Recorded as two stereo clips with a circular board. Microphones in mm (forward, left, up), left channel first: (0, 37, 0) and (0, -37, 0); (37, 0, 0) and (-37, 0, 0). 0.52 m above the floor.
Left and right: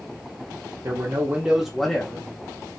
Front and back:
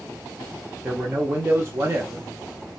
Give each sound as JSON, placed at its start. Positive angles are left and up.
{"t": 0.8, "sound": "a man speaking", "azimuth_deg": -120, "distance_m": 0.9}